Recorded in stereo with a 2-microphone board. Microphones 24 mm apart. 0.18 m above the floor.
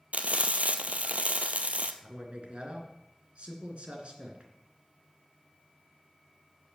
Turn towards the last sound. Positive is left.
turn(degrees=-55)  # may be behind; listen again after turning